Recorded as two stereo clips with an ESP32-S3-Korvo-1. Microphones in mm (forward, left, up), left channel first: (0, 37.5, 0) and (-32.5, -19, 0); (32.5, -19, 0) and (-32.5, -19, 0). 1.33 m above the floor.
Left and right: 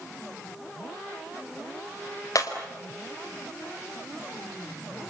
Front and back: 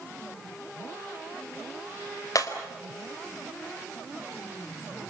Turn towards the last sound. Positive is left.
turn(degrees=30)